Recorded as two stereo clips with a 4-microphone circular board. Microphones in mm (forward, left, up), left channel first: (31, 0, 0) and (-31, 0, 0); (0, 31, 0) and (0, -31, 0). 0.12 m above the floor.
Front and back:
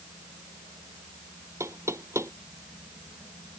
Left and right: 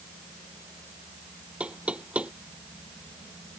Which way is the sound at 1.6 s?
155° right.